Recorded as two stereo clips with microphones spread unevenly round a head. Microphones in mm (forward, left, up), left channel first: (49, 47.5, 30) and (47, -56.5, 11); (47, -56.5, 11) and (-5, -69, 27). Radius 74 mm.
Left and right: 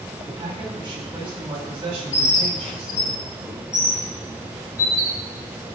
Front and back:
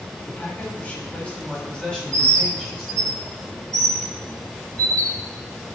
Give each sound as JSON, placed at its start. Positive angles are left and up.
{"t": 0.3, "sound": "a man speaking", "azimuth_deg": -45, "distance_m": 7.0}
{"t": 2.1, "sound": "a bird", "azimuth_deg": 155, "distance_m": 1.6}